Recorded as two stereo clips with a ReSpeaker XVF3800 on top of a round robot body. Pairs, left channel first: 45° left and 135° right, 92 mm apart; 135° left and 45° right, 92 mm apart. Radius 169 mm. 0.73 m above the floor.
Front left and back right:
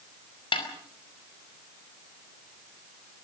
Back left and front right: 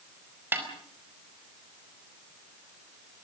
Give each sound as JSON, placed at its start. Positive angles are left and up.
{"t": 0.5, "sound": "a snare drum", "azimuth_deg": 25, "distance_m": 5.0}